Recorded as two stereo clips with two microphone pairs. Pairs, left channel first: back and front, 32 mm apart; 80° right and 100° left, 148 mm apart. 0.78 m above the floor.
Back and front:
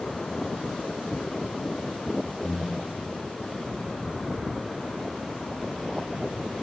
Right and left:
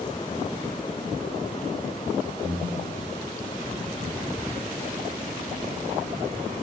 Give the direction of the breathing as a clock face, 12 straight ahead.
3 o'clock.